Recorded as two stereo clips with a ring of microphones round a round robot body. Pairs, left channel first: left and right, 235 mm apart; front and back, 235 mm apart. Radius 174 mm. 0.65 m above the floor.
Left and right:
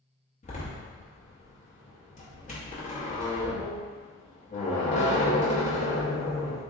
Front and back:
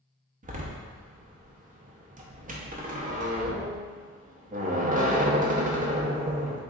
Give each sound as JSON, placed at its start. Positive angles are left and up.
{"t": 0.4, "sound": "a door slam", "azimuth_deg": 135, "distance_m": 0.8}